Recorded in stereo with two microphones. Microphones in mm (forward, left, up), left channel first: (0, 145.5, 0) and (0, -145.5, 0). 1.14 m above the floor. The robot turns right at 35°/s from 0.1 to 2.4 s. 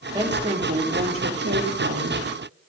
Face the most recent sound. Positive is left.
turn(degrees=-90)